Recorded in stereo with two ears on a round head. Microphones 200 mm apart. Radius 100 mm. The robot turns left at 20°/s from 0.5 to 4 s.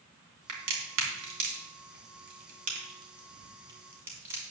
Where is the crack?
70° right (ahead or behind), 3 m; by 4.4 s 10° right (ahead or behind), 3 m.